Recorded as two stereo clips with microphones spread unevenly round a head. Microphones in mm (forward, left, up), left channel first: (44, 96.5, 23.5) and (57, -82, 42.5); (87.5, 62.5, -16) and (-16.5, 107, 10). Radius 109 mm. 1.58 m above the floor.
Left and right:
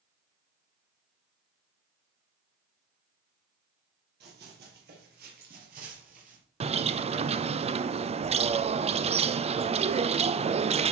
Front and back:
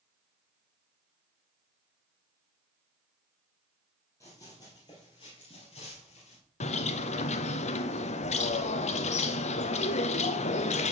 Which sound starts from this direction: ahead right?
A bird, at 6.6 s.